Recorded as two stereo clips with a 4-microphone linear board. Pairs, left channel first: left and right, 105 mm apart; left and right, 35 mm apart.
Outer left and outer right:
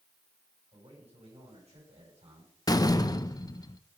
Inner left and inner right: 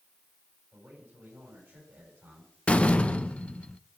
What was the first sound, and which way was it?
A man speaking, 85° right.